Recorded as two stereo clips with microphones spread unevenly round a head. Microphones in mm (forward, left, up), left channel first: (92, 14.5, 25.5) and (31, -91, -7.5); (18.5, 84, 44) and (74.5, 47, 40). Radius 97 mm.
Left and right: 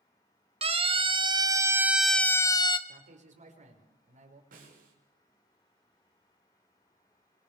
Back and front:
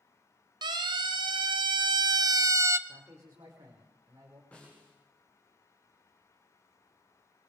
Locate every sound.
0.6 s a siren: 80° right, 2.5 m; by 2.8 s 15° left, 1.5 m
2.9 s a man speaking: 100° right, 5.5 m
4.5 s a snare drum: 135° right, 6 m